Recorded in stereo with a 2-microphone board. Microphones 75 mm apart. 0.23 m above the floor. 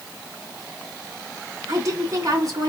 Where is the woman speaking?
45° right (ahead or behind), 2 m.